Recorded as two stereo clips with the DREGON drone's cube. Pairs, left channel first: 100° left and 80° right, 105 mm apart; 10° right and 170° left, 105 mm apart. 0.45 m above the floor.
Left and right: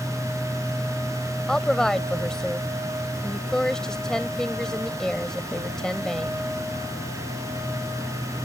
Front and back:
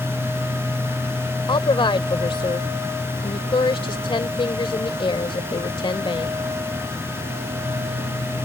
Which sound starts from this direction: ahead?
A woman speaking, at 1.5 s.